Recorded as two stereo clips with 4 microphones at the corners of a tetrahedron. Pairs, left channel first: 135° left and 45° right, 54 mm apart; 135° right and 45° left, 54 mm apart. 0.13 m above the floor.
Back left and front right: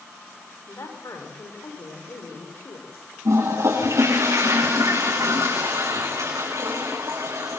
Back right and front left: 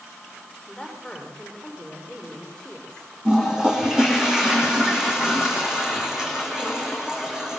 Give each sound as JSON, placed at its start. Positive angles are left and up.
{"t": 0.7, "sound": "a man speaking", "azimuth_deg": 145, "distance_m": 9.5}
{"t": 3.2, "sound": "a toilet flushing", "azimuth_deg": -30, "distance_m": 7.5}